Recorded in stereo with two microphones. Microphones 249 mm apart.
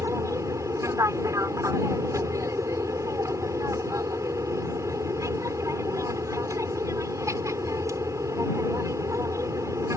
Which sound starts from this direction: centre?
An aircraft, at 0.0 s.